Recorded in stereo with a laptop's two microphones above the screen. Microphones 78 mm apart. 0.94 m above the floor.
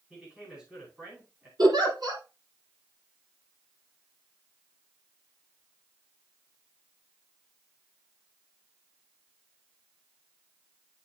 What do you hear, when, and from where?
0.1 s a man speaking: 15° right (ahead or behind), 5 m
1.6 s a giggle: 60° right (ahead or behind), 3.5 m